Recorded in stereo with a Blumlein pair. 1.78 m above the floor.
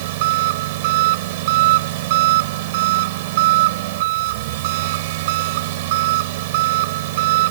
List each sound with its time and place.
0.0 s an engine running: 50° right